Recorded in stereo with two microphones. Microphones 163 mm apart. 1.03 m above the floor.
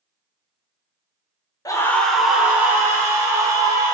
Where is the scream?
20° left (ahead or behind), 0.8 m; by 4.0 s 25° right (ahead or behind), 2.5 m.